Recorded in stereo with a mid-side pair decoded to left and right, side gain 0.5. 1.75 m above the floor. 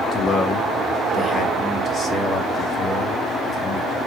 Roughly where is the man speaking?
Ahead left.